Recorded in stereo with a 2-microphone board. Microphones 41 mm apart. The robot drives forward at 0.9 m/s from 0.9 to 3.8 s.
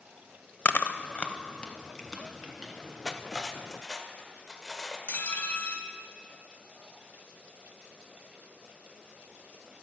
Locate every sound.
0.7 s chewing: 45° left (ahead or behind), 0.6 m; by 2.7 s 10° left (ahead or behind), 2 m
3.0 s cutlery clinking: 15° left (ahead or behind), 0.6 m; by 5.0 s 10° left (ahead or behind), 1.2 m
5.1 s dishes clattering: 50° left (ahead or behind), 1.1 m